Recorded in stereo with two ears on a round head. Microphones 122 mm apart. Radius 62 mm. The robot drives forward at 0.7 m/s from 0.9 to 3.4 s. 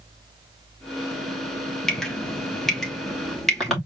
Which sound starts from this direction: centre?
Dripping, at 1.9 s.